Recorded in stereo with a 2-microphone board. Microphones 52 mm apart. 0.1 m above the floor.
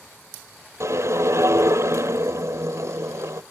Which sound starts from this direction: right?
A whoosh, at 0.8 s.